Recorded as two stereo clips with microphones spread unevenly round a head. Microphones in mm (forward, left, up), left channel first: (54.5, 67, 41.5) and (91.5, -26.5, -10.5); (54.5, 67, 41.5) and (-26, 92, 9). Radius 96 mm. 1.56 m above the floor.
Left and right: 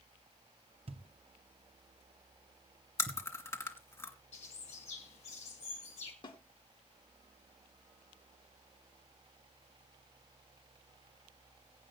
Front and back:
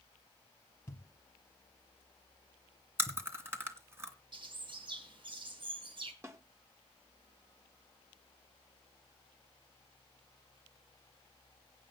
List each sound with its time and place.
0.9 s a thud: 30° right, 1.4 m
3.0 s chewing: 90° left, 2.5 m
4.3 s a bird: 135° left, 3 m
6.2 s a snare drum: 95° left, 3 m